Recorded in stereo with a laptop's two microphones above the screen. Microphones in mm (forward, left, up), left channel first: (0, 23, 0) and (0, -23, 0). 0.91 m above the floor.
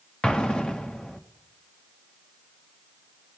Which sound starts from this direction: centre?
An explosion, at 0.2 s.